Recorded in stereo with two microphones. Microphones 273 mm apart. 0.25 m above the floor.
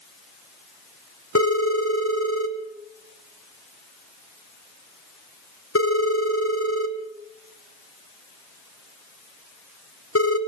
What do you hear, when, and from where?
1.4 s a phone ringing: 60° left (ahead or behind), 1.6 m